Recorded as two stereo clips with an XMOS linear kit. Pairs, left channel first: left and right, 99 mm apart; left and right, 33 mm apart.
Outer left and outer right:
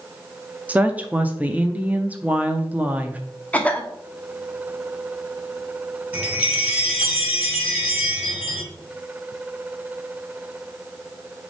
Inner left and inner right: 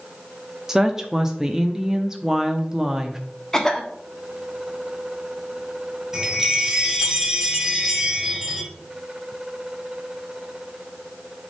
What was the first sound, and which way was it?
A woman speaking, 15° right (ahead or behind).